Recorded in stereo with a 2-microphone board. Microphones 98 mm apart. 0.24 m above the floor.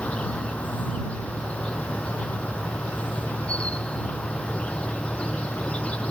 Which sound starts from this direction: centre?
An insect, at 0.0 s.